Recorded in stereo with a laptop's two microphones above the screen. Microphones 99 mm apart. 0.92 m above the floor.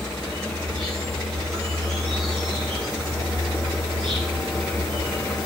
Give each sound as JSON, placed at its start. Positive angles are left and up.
{"t": 0.0, "sound": "an insect", "side_deg": 5, "distance_m": 7.5}